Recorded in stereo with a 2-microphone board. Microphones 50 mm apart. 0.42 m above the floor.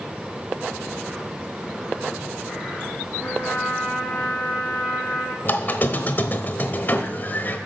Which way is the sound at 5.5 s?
40° left (ahead or behind).